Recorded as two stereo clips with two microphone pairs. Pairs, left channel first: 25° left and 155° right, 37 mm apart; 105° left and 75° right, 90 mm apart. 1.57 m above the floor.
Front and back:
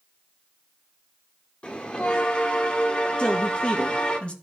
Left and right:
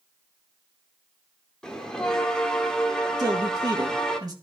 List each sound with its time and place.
1.6 s a bell: 30° left, 1.3 m
3.2 s a man speaking: 30° right, 1.9 m